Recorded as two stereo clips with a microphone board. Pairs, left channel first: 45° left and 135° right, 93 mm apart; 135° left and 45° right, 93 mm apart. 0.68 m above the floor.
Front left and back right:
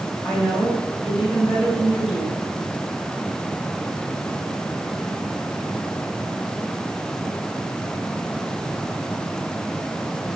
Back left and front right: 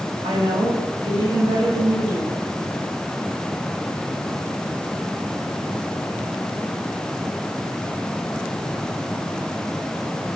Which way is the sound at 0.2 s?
45° right.